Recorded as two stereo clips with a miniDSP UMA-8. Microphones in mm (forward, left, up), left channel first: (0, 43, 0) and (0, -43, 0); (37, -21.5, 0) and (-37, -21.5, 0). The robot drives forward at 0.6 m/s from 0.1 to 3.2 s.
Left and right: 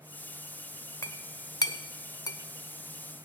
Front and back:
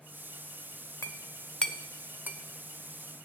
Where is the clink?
40° left, 0.7 m; by 2.4 s 130° left, 0.6 m.